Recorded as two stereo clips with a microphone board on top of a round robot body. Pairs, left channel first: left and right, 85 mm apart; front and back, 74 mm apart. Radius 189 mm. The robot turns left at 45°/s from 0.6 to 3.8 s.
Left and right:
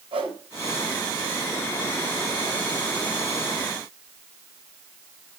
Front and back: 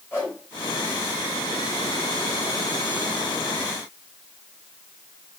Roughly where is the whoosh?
Ahead right.